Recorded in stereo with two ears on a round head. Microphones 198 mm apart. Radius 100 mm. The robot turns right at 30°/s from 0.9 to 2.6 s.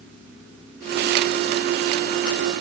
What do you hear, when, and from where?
Only background noise.